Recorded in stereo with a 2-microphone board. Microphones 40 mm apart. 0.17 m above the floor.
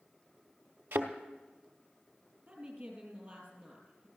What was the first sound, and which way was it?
A thud, 70° right (ahead or behind).